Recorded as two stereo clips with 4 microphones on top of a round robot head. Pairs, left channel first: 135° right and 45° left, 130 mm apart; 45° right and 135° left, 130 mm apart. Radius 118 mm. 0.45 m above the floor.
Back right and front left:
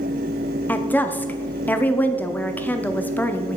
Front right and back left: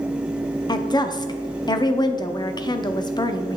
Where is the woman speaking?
70° right, 0.9 m.